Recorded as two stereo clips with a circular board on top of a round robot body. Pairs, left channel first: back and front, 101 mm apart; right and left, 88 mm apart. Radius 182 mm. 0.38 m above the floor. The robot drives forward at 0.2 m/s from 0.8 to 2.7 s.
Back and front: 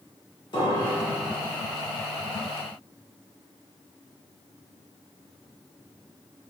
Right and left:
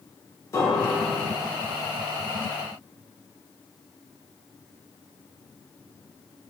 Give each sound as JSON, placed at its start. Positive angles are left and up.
{"t": 0.5, "sound": "a piano", "azimuth_deg": -140, "distance_m": 2.0}